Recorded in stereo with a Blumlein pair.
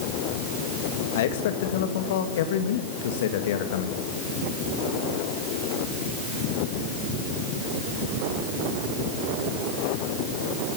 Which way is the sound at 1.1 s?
55° left.